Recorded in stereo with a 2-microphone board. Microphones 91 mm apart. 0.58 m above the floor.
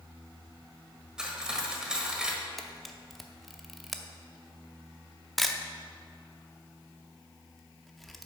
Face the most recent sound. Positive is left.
turn(degrees=0)  # may be behind; listen again after turning